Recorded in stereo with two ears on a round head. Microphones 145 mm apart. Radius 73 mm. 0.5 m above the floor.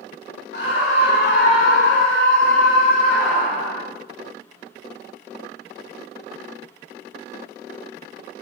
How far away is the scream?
About 3.5 m.